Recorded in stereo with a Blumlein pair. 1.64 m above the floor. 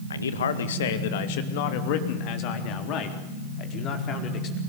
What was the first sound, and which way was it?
A man speaking, 70° left.